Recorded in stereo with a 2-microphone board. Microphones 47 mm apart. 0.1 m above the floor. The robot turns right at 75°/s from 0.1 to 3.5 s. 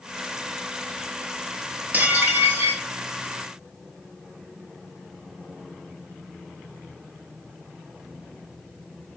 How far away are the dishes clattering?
About 1.2 m.